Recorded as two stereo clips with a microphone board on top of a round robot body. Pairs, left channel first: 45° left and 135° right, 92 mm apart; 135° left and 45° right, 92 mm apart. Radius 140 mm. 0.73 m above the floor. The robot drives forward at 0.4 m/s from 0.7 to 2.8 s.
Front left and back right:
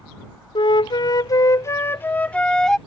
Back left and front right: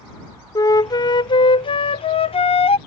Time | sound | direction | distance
0.6 | a flute | 80° left | ?